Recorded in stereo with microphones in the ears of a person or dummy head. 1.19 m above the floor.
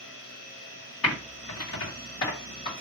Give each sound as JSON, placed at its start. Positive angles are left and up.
{"t": 1.0, "sound": "typing on a keyboard", "side_deg": 65, "distance_m": 1.9}